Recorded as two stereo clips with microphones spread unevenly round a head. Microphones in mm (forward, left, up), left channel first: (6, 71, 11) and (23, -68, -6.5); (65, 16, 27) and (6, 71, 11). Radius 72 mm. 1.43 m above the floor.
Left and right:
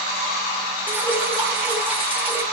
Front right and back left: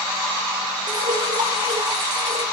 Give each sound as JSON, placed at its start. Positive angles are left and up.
{"t": 0.9, "sound": "dripping", "azimuth_deg": -160, "distance_m": 0.8}